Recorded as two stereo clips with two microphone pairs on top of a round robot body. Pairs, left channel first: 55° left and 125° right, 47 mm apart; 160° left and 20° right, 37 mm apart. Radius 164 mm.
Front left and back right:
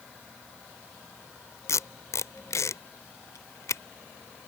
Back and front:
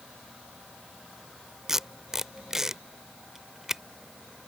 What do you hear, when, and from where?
1.7 s tape being pulled: 60° left